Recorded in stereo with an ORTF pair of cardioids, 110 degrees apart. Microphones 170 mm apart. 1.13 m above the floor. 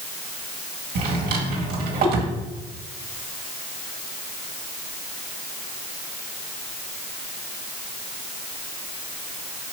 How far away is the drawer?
About 2.5 m.